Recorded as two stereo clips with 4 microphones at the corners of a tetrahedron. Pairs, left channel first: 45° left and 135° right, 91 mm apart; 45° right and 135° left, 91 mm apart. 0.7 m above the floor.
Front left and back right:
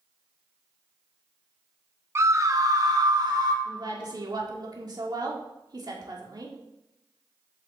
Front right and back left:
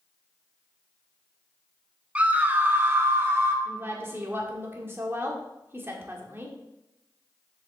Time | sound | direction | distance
2.1 | a scream | 165° right | 0.6 m
3.6 | a woman speaking | 165° right | 1.6 m